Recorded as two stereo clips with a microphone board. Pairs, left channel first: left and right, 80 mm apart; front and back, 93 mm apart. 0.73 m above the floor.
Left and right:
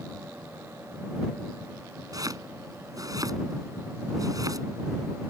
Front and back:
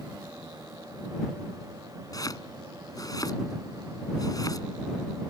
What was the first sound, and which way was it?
Chopping, 50° right.